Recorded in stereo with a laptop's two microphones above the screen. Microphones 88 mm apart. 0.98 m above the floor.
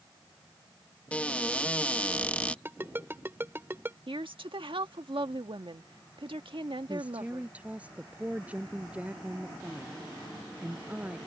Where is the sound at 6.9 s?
15° right (ahead or behind).